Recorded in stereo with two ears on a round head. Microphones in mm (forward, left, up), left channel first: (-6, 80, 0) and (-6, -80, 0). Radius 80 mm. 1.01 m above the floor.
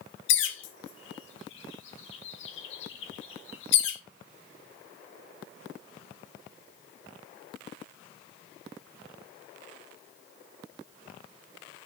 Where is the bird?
75° left (ahead or behind), 1.4 m.